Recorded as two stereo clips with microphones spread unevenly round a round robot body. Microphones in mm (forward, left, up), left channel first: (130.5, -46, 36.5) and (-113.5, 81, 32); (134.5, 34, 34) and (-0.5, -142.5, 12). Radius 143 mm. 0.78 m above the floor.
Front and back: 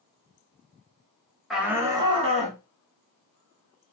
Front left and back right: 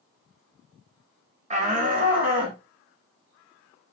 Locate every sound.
1.5 s a shout: 120° right, 0.9 m; by 2.6 s 155° right, 1.2 m